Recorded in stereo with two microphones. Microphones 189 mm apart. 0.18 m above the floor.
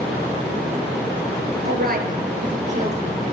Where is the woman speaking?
60° right (ahead or behind), 2.5 m; by 3.3 s 35° right (ahead or behind), 4 m.